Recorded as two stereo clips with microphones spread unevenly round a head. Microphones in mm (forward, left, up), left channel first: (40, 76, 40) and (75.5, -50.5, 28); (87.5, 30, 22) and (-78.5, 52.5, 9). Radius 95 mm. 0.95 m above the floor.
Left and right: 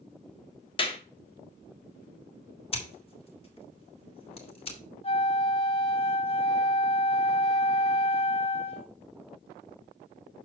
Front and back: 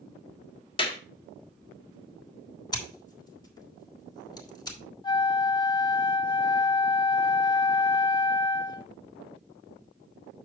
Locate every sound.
0.8 s a clap: 55° left, 1.6 m
2.7 s scissors: 60° left, 3 m
5.0 s a flute: 60° left, 1.3 m